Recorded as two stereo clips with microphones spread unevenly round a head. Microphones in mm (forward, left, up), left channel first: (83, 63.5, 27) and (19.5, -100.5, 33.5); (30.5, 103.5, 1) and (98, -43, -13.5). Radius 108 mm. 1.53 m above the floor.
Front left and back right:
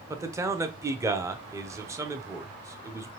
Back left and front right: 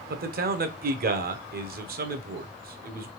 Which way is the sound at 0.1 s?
35° right.